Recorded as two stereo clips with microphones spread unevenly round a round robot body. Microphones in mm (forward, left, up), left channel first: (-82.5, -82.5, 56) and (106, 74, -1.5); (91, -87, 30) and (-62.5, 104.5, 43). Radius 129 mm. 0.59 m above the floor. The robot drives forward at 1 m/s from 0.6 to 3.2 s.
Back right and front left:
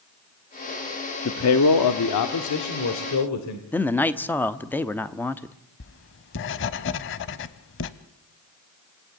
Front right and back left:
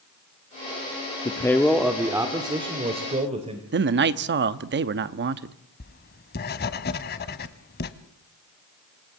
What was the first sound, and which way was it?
A man speaking, 115° right.